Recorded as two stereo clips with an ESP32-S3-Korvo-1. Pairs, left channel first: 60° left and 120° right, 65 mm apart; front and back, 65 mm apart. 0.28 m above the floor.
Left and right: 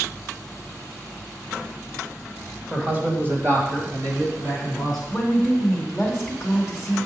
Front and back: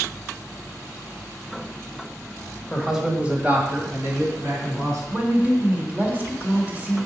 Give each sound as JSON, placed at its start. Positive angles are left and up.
{"t": 2.7, "sound": "a man speaking", "azimuth_deg": -70, "distance_m": 1.5}
{"t": 5.1, "sound": "a woman speaking", "azimuth_deg": 165, "distance_m": 1.4}